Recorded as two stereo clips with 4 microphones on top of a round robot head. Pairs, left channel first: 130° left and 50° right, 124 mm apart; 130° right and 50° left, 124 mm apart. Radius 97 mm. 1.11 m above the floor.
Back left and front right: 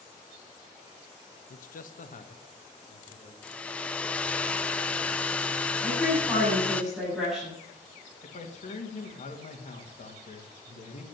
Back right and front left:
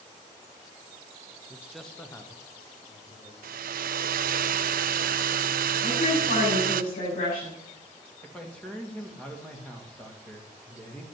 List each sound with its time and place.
1.5 s a man speaking: 120° left, 0.9 m; by 3.3 s straight behind, 2.5 m
3.4 s a hair dryer: 50° left, 0.6 m
5.8 s a woman speaking: 135° right, 7.5 m
8.2 s a man speaking: 145° left, 2 m